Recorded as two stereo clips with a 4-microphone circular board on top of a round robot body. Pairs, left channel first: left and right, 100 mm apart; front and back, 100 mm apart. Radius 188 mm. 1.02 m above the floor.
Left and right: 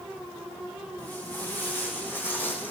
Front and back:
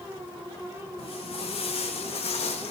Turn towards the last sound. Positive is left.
turn(degrees=20)